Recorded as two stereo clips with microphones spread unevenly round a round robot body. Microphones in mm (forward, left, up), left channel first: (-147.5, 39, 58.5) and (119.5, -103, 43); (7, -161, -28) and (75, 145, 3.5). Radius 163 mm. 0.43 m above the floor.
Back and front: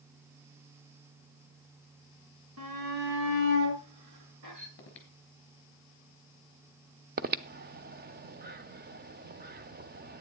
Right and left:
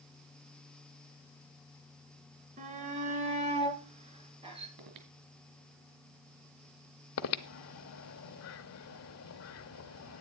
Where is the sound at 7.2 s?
80° right, 0.8 m.